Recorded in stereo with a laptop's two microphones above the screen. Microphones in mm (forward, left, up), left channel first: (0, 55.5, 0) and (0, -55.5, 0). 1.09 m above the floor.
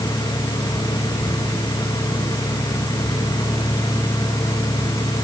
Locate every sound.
0.0 s a fan: 35° left (ahead or behind), 2.5 m